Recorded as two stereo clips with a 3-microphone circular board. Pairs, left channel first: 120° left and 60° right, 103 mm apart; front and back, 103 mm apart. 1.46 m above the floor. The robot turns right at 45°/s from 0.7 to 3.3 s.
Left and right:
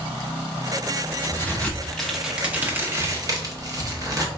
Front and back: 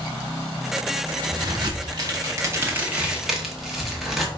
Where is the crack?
175° left, 0.9 m; by 4.3 s 95° right, 0.9 m.